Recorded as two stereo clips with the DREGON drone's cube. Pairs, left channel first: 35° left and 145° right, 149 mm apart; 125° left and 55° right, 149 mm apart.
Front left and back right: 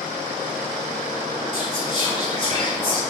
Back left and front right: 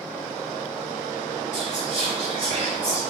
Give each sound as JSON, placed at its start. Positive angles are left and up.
{"t": 1.5, "sound": "whispering", "azimuth_deg": -15, "distance_m": 1.9}